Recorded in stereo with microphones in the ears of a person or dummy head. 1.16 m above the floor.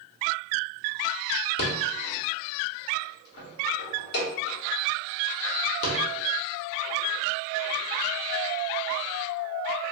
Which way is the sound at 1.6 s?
60° left (ahead or behind).